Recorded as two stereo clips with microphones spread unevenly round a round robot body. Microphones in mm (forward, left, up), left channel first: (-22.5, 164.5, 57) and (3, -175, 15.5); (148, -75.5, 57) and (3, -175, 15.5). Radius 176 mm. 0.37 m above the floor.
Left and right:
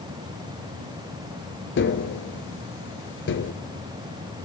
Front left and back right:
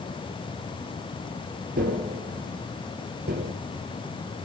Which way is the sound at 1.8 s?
155° left.